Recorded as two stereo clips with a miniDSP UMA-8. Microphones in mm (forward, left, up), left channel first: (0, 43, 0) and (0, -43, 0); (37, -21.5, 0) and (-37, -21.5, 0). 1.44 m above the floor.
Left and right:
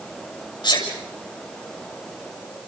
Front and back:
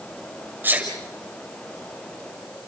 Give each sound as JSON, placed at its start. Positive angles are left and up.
{"t": 0.6, "sound": "a sneeze", "azimuth_deg": 115, "distance_m": 7.0}